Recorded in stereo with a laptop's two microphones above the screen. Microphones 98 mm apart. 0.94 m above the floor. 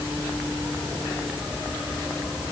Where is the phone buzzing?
I don't hear a phone buzzing.